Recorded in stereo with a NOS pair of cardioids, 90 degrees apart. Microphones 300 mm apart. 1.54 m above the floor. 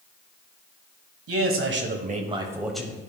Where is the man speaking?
50° right, 1.4 m; by 3.1 s 15° left, 1.2 m.